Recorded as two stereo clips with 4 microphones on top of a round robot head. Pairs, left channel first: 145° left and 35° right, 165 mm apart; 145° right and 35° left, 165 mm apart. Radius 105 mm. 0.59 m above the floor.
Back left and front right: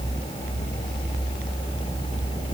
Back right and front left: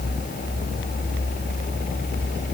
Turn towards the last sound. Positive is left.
No sound to turn to.